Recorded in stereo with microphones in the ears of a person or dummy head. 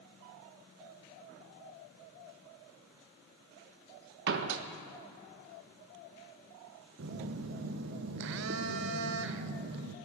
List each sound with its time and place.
4.3 s a door slam: 65° right (ahead or behind), 0.9 m
7.0 s a phone buzzing: 65° right (ahead or behind), 0.8 m